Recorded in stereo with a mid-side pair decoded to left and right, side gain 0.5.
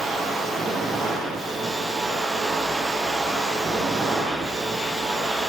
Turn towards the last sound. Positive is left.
turn(degrees=-25)